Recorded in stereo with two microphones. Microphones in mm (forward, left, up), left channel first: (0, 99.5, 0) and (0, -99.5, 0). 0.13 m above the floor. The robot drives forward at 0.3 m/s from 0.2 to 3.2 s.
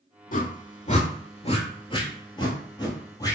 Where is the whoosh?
45° left (ahead or behind), 0.5 m; by 3.4 s 20° left (ahead or behind), 1.1 m.